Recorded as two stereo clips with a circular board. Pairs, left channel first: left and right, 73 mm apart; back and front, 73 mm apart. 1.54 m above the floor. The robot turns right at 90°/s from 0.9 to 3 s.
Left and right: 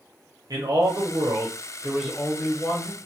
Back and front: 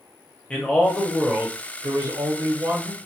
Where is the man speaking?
110° right, 0.8 m; by 3.0 s 80° left, 0.8 m.